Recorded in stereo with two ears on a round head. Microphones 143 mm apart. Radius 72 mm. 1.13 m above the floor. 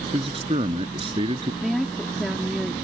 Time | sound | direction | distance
0.1 | a man speaking | 35° right (ahead or behind) | ?
1.6 | a woman speaking | centre (ahead or behind) | ?